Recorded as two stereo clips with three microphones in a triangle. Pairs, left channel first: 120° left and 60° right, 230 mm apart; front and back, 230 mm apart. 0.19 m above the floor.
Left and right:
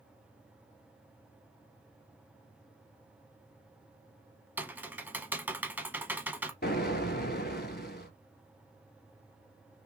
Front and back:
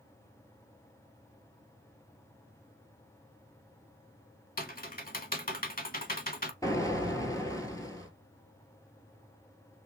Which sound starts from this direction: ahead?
Typing on a keyboard, at 4.6 s.